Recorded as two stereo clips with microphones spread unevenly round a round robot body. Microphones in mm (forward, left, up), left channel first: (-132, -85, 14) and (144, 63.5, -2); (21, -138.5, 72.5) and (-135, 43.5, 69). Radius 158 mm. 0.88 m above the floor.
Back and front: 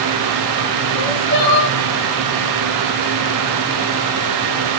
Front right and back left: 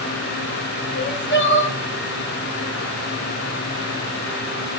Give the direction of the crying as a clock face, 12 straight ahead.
3 o'clock.